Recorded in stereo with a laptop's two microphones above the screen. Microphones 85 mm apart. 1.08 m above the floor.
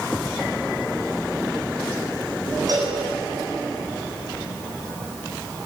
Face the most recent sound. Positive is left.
turn(degrees=-50)  # may be behind; listen again after turning